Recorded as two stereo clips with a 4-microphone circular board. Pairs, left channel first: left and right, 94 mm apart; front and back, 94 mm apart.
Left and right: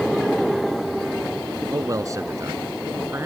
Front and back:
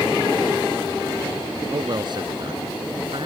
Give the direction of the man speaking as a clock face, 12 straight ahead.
5 o'clock.